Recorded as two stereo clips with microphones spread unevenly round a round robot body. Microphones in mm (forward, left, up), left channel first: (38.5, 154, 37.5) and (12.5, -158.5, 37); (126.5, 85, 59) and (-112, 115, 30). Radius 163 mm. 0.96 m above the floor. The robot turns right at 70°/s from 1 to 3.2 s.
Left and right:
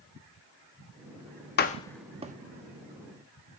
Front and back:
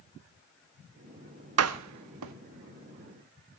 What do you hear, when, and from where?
1.6 s a door slam: 145° left, 0.9 m; by 2.3 s 160° right, 0.9 m